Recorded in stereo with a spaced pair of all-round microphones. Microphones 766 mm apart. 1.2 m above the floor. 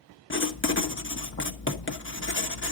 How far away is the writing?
About 1.0 m.